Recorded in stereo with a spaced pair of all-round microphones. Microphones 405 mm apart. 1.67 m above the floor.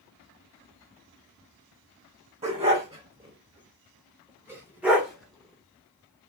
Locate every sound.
2.4 s a dog barking: 15° right (ahead or behind), 1.9 m; by 6.3 s 5° left (ahead or behind), 1.4 m